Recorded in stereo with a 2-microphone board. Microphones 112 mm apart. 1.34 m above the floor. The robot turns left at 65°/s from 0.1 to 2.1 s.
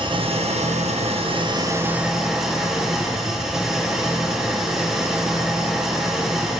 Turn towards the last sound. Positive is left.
turn(degrees=-175)